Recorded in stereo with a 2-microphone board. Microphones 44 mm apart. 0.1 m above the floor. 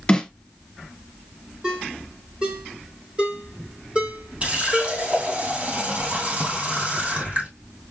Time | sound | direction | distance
0.1 | a snare drum | 15° left (ahead or behind) | 1.5 m
1.6 | a ringtone | 25° right (ahead or behind) | 1.7 m
4.4 | a running tap | 30° right (ahead or behind) | 2 m